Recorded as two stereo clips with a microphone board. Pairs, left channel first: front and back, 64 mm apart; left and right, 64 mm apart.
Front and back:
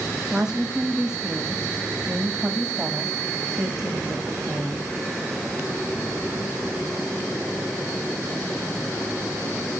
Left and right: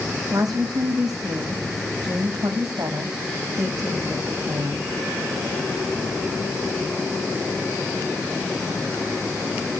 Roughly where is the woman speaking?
Right.